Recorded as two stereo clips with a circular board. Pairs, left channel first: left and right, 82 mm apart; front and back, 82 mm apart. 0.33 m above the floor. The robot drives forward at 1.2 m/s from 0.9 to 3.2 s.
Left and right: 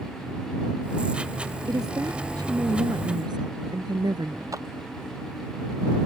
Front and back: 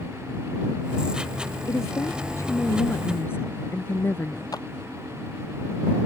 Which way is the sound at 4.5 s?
45° right.